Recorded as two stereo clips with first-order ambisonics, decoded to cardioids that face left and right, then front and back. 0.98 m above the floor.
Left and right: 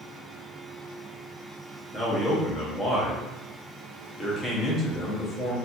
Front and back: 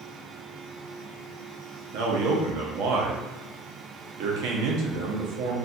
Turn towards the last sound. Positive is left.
turn(degrees=170)